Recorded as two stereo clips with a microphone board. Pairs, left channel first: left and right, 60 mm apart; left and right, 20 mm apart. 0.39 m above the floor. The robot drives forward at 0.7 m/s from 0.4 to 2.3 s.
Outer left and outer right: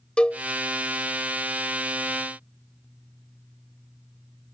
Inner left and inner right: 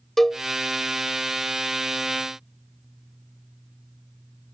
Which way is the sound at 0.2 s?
20° left (ahead or behind).